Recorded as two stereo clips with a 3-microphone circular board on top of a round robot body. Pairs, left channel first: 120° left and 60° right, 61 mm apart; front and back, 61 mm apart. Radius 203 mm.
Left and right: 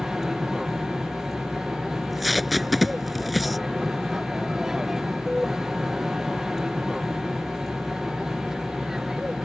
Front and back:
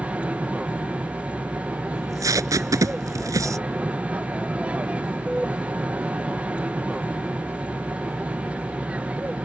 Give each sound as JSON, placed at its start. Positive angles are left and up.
{"t": 0.0, "sound": "an aircraft", "azimuth_deg": -135}
{"t": 1.9, "sound": "tape being pulled", "azimuth_deg": -150}